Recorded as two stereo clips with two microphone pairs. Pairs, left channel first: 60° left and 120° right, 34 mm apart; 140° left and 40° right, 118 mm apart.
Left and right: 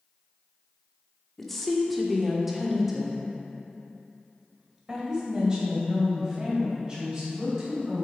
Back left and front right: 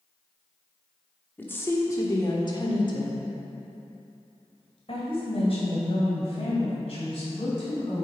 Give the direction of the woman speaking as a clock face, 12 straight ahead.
8 o'clock.